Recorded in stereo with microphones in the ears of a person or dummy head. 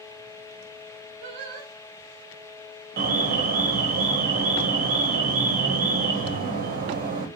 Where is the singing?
55° right (ahead or behind), 0.9 m.